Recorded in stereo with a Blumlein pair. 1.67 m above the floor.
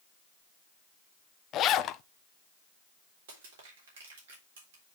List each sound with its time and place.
1.5 s a zipper: 30° left, 0.5 m
3.3 s crushing: 55° right, 3.5 m